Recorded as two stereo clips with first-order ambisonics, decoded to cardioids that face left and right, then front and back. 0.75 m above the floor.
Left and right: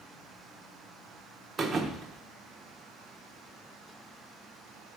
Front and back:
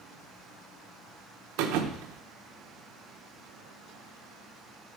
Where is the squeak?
I don't hear a squeak.